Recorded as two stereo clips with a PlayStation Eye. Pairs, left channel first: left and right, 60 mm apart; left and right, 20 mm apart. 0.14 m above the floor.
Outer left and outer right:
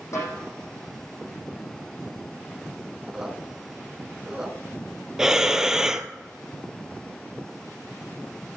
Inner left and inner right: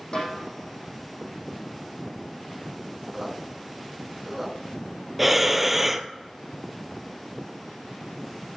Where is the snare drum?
55° left (ahead or behind), 6 m.